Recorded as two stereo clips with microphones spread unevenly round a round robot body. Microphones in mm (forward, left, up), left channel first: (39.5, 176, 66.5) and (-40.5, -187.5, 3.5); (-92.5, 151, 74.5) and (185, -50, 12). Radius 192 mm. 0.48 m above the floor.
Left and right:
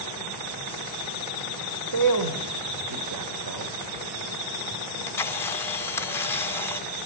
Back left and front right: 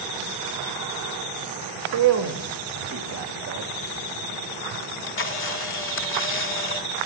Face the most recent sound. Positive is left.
turn(degrees=175)